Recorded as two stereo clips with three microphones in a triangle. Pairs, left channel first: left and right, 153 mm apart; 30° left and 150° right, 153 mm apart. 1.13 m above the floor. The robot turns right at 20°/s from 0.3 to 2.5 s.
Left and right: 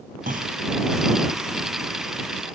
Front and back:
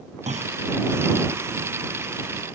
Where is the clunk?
110° right; by 0.6 s 105° right.